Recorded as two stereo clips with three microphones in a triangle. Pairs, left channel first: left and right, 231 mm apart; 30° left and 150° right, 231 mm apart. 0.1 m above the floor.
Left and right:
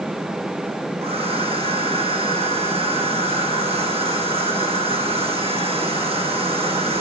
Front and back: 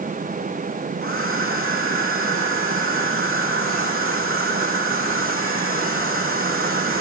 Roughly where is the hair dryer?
Behind right.